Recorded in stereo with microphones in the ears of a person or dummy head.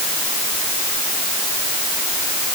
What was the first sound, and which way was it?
Only background noise.